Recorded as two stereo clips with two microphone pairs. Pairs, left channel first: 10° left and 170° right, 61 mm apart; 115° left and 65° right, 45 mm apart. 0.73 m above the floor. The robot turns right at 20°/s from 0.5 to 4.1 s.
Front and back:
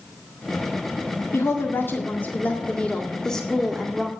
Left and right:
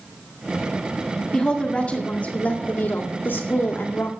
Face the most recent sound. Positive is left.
turn(degrees=105)